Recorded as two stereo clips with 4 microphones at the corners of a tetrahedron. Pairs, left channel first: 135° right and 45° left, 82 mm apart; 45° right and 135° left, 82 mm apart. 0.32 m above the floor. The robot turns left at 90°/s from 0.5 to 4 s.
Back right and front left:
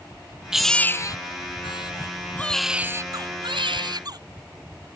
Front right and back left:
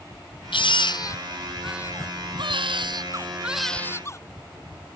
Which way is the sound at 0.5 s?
40° right.